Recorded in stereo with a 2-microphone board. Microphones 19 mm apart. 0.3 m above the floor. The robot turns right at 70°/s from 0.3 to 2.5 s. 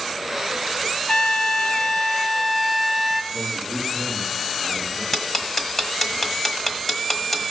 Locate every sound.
1.1 s a trumpet: 85° left, 0.6 m; by 3.2 s straight behind, 0.6 m
3.3 s a man speaking: 65° left (ahead or behind), 6.5 m
5.1 s ticking: 25° left (ahead or behind), 1.2 m